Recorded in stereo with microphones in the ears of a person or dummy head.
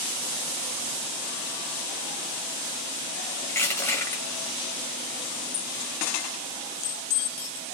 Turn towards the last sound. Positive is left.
turn(degrees=10)  # may be behind; listen again after turning